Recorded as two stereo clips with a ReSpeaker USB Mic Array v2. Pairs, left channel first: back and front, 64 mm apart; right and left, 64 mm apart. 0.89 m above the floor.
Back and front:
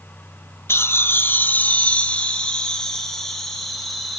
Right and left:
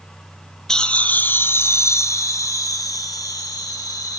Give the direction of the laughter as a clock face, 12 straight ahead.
6 o'clock.